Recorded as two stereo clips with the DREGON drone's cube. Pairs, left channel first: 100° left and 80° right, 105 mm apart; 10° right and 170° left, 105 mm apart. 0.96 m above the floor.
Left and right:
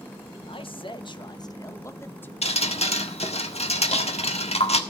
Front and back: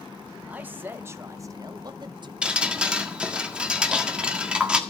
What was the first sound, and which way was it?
A man speaking, 95° left.